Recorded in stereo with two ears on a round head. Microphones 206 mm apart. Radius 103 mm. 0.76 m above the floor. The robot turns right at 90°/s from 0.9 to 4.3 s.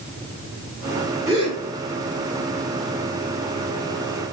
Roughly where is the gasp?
Centre.